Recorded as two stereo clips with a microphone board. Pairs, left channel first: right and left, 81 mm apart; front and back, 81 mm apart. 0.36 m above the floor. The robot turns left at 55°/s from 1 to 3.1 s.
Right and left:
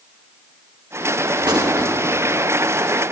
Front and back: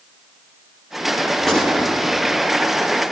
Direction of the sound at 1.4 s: 95° left.